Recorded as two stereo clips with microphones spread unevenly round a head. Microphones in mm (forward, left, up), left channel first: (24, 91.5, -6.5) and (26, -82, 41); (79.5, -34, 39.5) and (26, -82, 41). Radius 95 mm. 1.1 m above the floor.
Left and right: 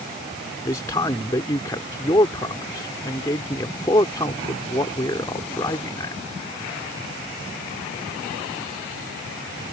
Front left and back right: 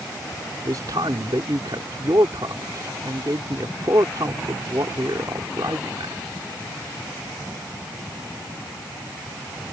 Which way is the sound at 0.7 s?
165° left.